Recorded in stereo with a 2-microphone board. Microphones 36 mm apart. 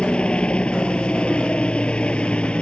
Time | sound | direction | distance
0.0 | a helicopter | 30° left (ahead or behind) | ?